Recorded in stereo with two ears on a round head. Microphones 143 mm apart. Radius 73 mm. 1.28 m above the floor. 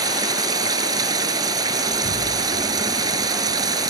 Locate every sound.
0.0 s running water: 25° right (ahead or behind)
1.9 s an explosion: 70° left (ahead or behind)